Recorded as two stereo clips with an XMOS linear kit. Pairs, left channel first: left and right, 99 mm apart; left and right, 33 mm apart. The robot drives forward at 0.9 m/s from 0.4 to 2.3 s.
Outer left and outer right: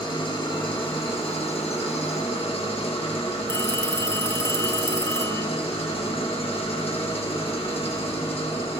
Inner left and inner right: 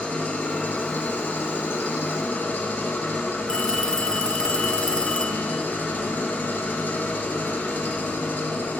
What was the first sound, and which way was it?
An engine running, 55° left (ahead or behind).